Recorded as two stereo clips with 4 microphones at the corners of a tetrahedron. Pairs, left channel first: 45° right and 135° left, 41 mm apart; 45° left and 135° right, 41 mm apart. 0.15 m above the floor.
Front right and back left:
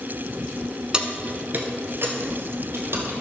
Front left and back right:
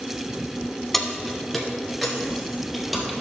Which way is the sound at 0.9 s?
120° left.